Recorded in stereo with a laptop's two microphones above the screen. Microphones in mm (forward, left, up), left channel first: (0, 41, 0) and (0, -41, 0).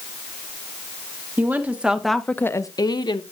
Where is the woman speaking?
25° right (ahead or behind), 1.6 m; by 3.2 s 65° left (ahead or behind), 1.2 m.